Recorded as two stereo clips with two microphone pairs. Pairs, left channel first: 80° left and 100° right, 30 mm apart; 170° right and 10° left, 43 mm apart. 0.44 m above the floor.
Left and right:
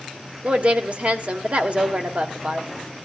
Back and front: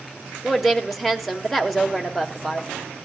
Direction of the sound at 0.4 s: 80° right.